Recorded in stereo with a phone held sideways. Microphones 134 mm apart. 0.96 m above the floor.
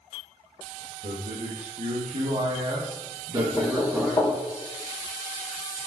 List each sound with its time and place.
1.0 s a man speaking: 70° right (ahead or behind), 1.6 m; by 4.4 s 5° right (ahead or behind), 1.3 m
3.4 s knocking: 15° left (ahead or behind), 2.5 m